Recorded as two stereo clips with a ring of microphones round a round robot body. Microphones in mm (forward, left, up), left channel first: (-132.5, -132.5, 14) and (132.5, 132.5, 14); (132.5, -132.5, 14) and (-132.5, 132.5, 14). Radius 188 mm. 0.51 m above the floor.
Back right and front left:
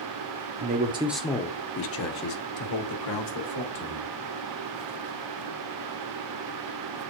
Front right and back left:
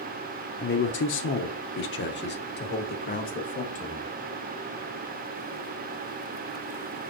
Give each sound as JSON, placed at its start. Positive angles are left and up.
{"t": 0.6, "sound": "a man speaking", "azimuth_deg": 5, "distance_m": 0.8}